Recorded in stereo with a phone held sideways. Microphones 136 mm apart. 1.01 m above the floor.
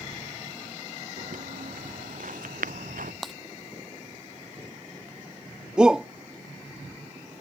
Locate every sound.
1.2 s footsteps: 80° right
3.2 s breaking glass: centre (ahead or behind)
5.8 s a shout: 5° right (ahead or behind)